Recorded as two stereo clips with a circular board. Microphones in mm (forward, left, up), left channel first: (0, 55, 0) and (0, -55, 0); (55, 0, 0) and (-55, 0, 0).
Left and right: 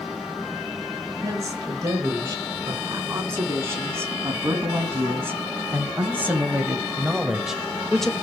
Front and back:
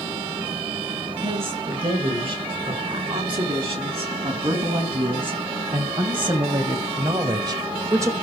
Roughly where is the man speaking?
Behind right.